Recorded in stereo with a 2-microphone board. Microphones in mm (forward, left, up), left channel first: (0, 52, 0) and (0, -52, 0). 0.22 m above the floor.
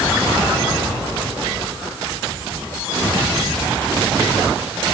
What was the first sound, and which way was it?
Only background noise.